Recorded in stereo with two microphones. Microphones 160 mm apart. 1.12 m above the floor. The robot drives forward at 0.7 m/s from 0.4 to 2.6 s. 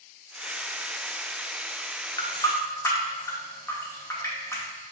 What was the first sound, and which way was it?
A running tap, 25° left (ahead or behind).